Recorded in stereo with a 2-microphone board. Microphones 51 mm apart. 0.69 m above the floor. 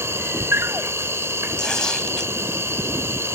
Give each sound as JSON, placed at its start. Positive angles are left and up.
{"t": 0.0, "sound": "an insect", "side_deg": -60}
{"t": 1.6, "sound": "tearing paper", "side_deg": 15}